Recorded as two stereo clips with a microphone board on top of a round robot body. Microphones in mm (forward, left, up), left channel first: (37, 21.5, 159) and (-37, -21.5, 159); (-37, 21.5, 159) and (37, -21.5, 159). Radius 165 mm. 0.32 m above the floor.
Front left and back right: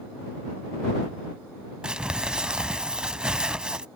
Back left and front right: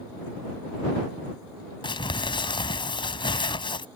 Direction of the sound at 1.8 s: 130° left.